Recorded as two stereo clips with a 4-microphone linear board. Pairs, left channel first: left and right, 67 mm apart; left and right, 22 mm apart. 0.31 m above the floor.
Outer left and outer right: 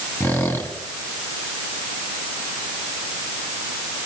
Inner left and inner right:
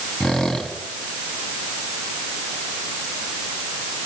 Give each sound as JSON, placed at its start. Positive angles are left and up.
{"t": 0.2, "sound": "a squeak", "side_deg": 40, "distance_m": 1.9}